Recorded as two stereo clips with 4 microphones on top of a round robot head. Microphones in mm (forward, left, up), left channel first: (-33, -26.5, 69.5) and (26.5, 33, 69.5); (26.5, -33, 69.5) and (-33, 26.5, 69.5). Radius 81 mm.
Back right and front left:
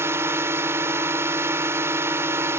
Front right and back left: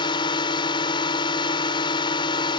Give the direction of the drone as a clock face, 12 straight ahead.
1 o'clock.